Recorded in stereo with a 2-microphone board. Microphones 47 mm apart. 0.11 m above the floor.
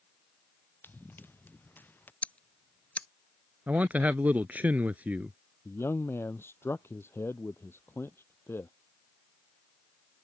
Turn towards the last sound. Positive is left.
turn(degrees=60)  # may be behind; listen again after turning